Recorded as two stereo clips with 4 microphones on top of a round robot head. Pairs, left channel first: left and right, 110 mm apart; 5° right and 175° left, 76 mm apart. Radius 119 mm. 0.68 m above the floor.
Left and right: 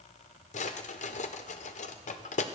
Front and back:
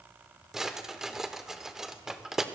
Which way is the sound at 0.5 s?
95° left.